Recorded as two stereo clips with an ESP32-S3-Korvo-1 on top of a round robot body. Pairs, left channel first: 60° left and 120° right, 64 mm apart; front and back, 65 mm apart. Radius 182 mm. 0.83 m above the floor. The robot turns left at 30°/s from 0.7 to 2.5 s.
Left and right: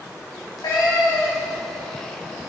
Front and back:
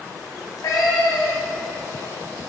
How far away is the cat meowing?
About 1.4 m.